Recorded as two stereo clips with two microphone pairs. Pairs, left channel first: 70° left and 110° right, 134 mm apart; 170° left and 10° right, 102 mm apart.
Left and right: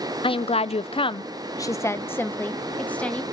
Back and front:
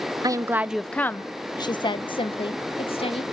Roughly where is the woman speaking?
Ahead left.